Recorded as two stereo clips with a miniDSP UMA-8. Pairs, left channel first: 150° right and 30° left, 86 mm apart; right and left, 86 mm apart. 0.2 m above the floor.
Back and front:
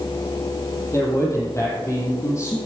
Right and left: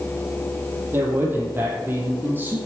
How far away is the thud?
I don't hear a thud.